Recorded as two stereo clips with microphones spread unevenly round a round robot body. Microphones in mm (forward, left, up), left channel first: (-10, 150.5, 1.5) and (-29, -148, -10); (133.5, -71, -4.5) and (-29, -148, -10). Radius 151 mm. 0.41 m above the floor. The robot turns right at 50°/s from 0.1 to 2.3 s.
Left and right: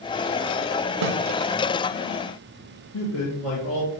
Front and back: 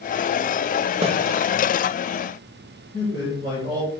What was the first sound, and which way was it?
A snare drum, 100° right.